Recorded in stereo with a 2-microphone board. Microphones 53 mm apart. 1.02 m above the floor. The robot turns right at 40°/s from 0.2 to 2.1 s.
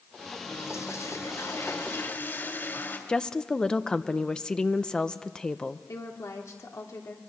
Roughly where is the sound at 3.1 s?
Centre.